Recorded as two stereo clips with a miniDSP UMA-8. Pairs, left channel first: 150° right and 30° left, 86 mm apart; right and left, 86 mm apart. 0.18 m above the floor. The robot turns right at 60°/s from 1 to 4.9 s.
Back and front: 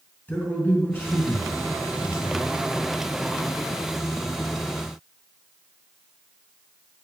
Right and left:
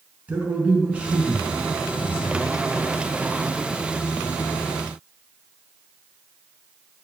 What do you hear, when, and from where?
0.3 s a man speaking: 155° left, 1.8 m; by 2.4 s 120° right, 1.8 m